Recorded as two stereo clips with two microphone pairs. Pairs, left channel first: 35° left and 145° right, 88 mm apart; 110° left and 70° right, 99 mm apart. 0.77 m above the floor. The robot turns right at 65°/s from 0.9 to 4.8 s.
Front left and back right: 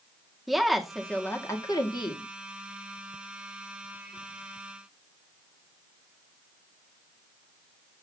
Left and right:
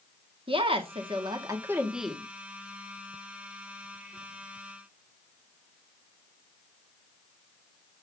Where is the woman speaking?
55° right, 1.9 m; by 2.2 s 30° left, 1.9 m.